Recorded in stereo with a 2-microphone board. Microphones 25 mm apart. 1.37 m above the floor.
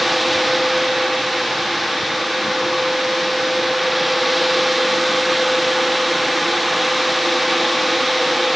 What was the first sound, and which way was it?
Only background noise.